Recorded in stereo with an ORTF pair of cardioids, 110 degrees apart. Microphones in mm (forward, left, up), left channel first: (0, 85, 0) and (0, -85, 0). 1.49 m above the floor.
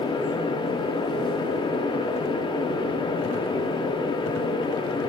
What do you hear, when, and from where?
0.0 s a fan: 25° left, 0.8 m